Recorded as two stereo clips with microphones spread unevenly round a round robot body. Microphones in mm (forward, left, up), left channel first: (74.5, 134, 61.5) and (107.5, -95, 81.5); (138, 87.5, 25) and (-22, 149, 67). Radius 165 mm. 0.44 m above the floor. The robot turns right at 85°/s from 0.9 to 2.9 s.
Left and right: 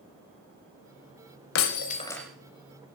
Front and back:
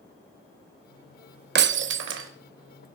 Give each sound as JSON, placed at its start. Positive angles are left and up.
{"t": 1.6, "sound": "breaking glass", "azimuth_deg": 130, "distance_m": 0.6}